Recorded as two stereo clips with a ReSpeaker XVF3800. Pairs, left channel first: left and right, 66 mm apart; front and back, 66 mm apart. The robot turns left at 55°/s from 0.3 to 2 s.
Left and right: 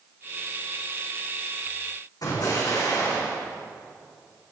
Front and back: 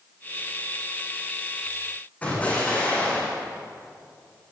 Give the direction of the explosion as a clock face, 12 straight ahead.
10 o'clock.